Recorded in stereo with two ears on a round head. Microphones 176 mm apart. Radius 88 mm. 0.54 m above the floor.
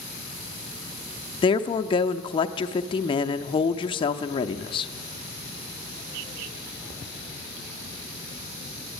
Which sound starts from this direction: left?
A woman speaking, at 1.4 s.